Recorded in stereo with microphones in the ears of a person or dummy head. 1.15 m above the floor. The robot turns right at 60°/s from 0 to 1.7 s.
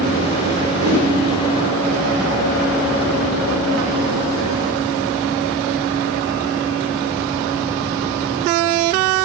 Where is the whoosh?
45° right (ahead or behind), 6 m; by 1.1 s 60° right (ahead or behind), 6 m.